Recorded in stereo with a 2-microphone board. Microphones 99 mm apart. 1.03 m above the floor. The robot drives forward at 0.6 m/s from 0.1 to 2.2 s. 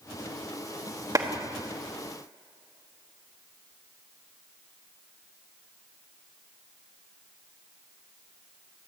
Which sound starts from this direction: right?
A clap, at 1.1 s.